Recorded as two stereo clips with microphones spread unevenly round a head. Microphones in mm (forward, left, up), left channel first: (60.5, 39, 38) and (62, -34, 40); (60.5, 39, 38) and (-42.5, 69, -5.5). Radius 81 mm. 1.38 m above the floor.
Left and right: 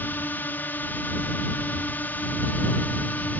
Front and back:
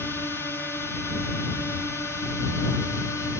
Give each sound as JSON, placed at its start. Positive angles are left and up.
{"t": 0.0, "sound": "a drone", "azimuth_deg": 75}